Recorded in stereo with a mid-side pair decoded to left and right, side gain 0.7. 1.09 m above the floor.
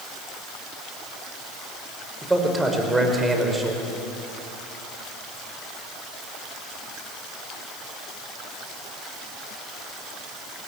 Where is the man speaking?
10° right, 5 m.